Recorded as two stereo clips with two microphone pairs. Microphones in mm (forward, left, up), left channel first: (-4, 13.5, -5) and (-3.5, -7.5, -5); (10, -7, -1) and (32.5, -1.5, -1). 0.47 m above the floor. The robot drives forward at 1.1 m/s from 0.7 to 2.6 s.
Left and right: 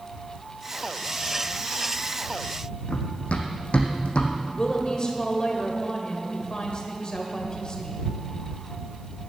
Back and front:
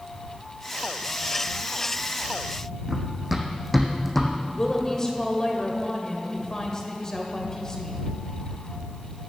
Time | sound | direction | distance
2.9 | running footsteps | 80° left | 1.5 m
4.4 | a woman speaking | 135° left | 1.9 m